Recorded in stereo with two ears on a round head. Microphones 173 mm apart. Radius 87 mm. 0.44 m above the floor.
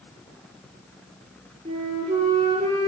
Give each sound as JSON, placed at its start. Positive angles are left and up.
{"t": 1.6, "sound": "a flute", "side_deg": -35, "distance_m": 8.5}